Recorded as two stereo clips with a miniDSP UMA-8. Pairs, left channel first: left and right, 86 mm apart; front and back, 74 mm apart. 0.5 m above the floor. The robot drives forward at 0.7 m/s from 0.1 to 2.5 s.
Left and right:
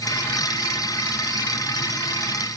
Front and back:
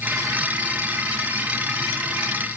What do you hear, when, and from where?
Only background noise.